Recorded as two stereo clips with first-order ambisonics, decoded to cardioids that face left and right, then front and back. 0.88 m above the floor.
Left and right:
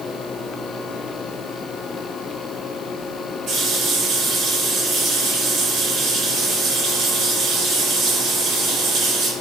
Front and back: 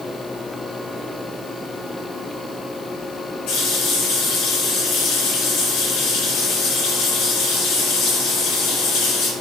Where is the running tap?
35° right, 2 m.